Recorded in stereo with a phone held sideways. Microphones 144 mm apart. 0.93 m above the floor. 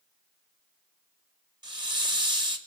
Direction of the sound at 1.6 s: 30° right (ahead or behind).